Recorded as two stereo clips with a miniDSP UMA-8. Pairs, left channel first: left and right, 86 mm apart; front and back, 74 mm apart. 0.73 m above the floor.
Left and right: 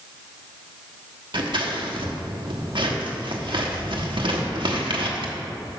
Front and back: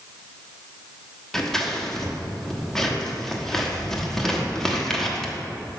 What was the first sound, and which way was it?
Scissors, 85° right.